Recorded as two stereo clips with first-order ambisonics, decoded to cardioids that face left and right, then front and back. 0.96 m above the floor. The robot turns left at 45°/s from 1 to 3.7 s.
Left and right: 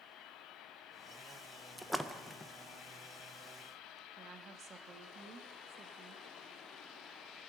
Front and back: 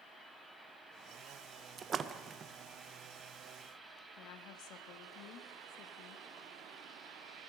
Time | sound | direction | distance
1.8 | a splash | 170° right | 0.5 m
4.2 | a woman speaking | 25° right | 1.1 m